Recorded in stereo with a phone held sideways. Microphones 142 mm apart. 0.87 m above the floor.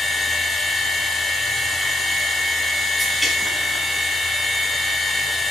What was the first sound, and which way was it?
A machine running, centre (ahead or behind).